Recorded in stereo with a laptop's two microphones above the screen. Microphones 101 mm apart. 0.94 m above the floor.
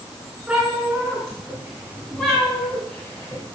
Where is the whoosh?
I don't hear a whoosh.